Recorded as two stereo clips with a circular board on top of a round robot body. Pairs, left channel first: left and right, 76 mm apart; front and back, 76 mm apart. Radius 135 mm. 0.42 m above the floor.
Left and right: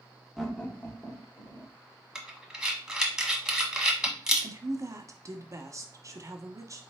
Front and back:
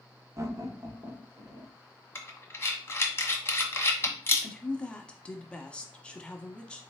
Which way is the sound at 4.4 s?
70° right.